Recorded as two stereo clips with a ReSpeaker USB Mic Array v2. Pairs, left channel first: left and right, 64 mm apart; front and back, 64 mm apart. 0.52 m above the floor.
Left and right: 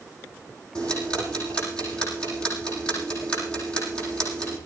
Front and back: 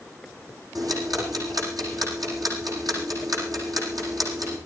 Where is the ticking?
165° left, 9 m.